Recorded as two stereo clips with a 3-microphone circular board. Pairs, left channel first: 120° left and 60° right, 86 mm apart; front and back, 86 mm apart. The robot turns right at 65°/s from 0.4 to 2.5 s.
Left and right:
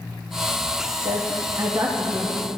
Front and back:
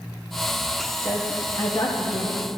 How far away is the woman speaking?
About 0.8 m.